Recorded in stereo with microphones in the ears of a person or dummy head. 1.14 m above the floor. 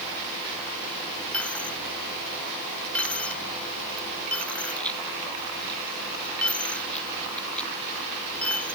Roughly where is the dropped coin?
Centre.